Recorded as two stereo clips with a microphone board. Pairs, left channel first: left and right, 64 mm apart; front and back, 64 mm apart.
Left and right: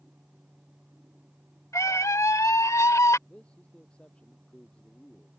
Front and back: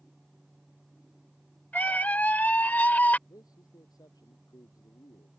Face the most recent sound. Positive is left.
turn(degrees=15)